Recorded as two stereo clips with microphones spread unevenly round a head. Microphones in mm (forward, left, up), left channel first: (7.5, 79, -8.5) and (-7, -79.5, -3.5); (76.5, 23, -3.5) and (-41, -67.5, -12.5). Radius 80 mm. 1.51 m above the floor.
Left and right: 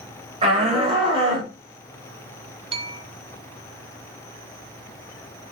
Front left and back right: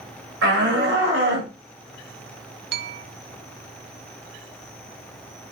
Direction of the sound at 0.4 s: 150° right.